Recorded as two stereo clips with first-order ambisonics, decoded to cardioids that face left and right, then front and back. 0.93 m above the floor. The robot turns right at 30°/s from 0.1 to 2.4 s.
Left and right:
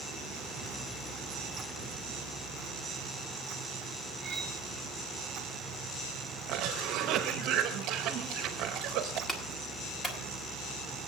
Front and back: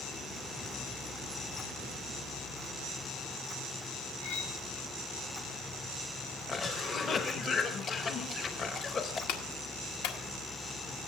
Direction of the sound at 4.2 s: 20° right.